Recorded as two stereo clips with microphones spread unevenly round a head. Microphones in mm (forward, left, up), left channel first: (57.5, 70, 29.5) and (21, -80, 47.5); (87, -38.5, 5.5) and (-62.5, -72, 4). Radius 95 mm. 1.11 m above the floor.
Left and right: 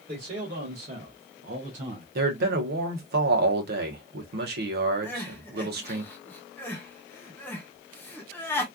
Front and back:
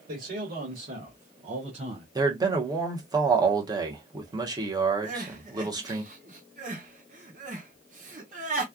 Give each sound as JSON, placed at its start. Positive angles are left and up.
{"t": 0.1, "sound": "a man speaking", "azimuth_deg": -150, "distance_m": 1.8}
{"t": 2.1, "sound": "a man speaking", "azimuth_deg": -105, "distance_m": 1.2}
{"t": 5.0, "sound": "crying", "azimuth_deg": 150, "distance_m": 0.9}